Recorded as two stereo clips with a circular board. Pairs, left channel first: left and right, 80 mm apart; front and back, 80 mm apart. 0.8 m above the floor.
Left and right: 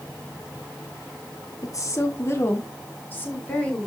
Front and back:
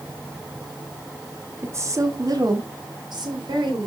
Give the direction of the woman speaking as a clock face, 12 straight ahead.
8 o'clock.